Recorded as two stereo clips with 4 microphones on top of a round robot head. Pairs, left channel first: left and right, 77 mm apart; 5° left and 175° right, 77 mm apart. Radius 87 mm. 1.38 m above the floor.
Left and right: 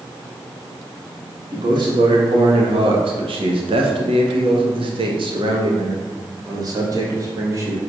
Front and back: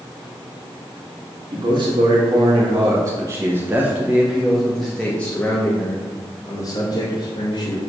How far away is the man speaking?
About 2 m.